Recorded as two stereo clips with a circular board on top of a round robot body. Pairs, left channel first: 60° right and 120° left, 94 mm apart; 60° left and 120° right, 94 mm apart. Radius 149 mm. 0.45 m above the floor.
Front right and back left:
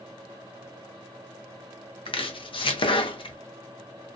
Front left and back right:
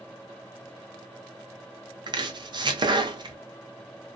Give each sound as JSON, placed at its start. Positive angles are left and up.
{"t": 2.1, "sound": "chopping", "azimuth_deg": -85, "distance_m": 0.7}